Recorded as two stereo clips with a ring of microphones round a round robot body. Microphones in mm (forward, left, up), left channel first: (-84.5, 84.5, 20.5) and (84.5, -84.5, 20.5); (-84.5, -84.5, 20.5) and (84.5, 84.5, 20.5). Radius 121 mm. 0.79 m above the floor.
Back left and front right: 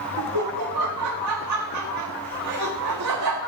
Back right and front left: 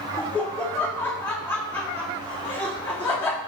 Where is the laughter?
55° right, 1.5 m.